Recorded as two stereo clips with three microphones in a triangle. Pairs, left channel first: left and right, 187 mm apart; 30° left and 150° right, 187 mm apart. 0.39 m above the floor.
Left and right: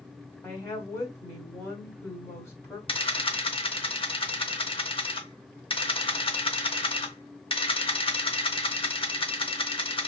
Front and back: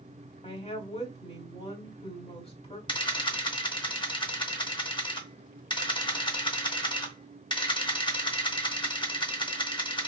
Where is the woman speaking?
25° left, 1.2 m.